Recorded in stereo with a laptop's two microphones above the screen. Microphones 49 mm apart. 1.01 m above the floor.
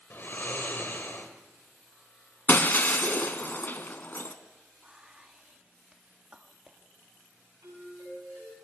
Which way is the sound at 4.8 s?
20° right (ahead or behind).